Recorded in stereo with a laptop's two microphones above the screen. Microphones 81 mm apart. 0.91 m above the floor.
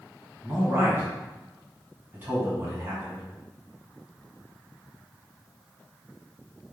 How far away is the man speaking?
About 1.3 m.